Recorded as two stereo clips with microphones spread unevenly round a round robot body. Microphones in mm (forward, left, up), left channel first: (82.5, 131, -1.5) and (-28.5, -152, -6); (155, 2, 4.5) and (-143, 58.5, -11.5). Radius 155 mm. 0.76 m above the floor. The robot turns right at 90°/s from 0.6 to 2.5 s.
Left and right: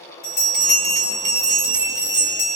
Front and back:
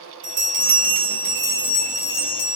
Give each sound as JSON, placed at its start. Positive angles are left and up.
{"t": 0.2, "sound": "a bell", "azimuth_deg": 125, "distance_m": 1.8}